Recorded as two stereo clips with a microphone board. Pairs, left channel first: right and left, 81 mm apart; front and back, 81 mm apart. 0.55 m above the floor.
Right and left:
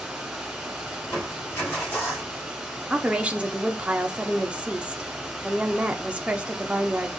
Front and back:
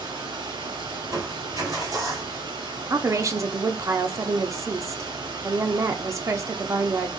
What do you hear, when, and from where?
0.0 s running water: 175° left, 2.5 m
1.0 s crushing: 150° right, 2.5 m
2.9 s a woman speaking: 160° left, 0.8 m